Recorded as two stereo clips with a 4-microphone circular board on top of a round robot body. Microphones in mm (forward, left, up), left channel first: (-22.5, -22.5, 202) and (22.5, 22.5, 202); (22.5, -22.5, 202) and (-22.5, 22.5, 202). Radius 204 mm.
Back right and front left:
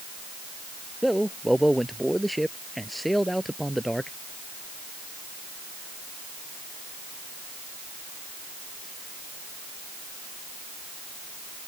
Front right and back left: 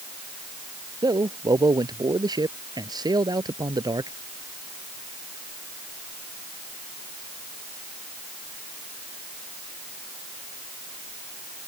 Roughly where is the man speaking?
Behind left.